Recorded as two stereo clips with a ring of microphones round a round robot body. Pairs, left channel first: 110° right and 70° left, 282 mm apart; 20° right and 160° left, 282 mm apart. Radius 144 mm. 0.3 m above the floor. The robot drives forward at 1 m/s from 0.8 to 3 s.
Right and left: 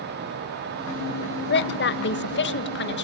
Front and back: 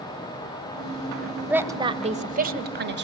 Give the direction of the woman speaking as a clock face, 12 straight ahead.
4 o'clock.